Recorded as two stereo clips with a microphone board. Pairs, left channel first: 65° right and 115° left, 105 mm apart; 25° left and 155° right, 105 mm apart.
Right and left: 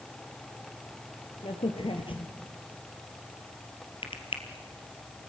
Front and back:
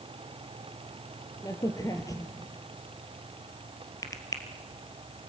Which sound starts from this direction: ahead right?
A crack, at 1.4 s.